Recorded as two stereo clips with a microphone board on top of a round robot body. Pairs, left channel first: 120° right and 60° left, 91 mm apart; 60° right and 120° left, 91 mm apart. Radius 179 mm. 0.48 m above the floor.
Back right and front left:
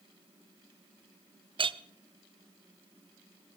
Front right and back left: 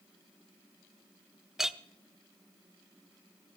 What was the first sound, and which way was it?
A clink, 35° left.